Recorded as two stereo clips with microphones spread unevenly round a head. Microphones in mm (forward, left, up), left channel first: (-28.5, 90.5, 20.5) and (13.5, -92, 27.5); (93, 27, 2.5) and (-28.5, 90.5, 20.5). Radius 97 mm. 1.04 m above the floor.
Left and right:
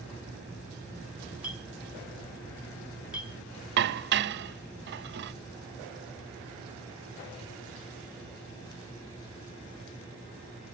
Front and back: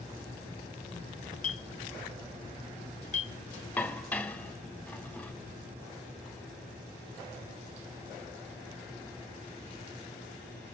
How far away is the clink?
About 1.5 m.